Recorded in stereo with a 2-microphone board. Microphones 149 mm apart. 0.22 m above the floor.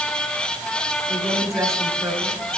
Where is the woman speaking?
20° right (ahead or behind), 3.5 m.